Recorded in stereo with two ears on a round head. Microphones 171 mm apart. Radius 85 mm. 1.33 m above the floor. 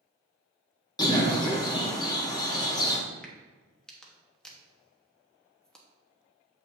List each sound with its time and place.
1.0 s a bird: 20° left (ahead or behind), 1.0 m
3.2 s a crack: 5° left (ahead or behind), 1.0 m